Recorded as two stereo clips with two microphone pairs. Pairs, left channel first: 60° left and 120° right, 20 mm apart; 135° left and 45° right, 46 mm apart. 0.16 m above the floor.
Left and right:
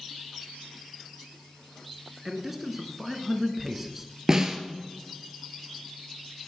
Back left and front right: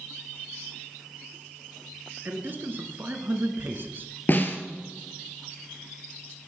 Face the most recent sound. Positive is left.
turn(degrees=180)